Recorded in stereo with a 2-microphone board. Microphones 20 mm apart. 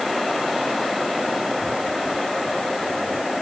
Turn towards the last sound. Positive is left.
No sound to turn to.